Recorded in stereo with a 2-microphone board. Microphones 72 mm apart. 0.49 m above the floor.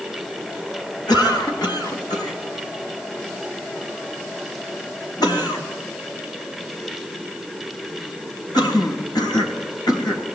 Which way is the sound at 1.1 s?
70° left (ahead or behind).